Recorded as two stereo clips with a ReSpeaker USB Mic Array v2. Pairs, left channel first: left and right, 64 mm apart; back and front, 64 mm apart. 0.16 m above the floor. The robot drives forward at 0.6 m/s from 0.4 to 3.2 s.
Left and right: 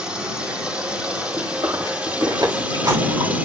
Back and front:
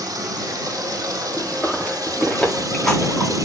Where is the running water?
15° right, 4.5 m; by 3.5 s 25° right, 3 m.